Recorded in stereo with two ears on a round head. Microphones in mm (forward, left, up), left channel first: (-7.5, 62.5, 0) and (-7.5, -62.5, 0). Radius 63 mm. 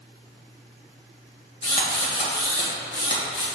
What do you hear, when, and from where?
1.6 s a drill: 40° left (ahead or behind), 2 m